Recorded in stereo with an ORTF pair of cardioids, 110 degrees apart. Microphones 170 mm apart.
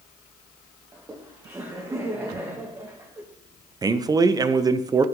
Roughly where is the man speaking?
Ahead right.